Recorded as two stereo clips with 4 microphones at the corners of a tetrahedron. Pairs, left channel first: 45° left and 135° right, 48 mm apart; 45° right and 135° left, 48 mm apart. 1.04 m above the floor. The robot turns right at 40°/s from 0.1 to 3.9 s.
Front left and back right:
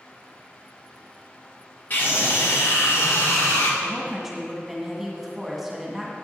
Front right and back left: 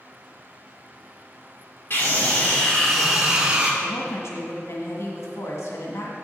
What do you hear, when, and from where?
1.9 s a scream: 5° right, 2.5 m; by 3.7 s 70° left, 2.5 m
3.8 s a woman speaking: 55° right, 1.9 m; by 6.2 s 50° right, 1.9 m